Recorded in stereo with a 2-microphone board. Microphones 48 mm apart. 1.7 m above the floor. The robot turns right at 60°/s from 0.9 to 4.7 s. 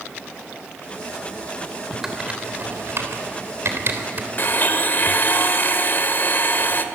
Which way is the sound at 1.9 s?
Centre (ahead or behind).